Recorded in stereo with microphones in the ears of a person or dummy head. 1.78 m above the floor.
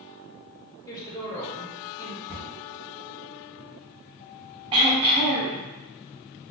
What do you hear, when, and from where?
0.9 s a woman speaking: 20° left (ahead or behind), 0.8 m
2.3 s a cupboard door: centre (ahead or behind), 1.5 m
4.7 s throat clearing: 25° right (ahead or behind), 0.6 m